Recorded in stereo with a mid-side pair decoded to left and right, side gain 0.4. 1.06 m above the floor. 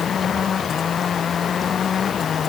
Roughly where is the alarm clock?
I don't hear an alarm clock.